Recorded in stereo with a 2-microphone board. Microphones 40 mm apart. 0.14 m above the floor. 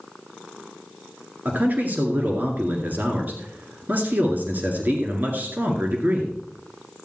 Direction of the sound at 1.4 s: 50° right (ahead or behind).